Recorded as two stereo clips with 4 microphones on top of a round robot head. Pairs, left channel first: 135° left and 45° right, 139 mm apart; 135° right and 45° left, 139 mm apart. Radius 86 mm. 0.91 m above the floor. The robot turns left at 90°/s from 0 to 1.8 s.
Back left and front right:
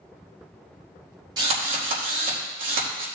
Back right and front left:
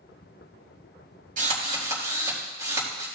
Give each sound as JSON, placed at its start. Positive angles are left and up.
{"t": 1.4, "sound": "a drill", "azimuth_deg": 15, "distance_m": 4.0}